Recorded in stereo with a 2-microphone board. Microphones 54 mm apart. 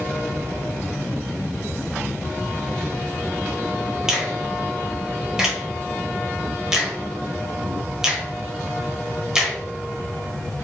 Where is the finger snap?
10° right (ahead or behind), 0.9 m.